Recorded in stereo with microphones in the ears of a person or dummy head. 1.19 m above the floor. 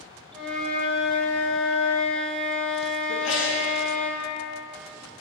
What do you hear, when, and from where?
0.3 s a flute: 5° left (ahead or behind), 1.2 m
3.1 s a sneeze: 70° left (ahead or behind), 1.3 m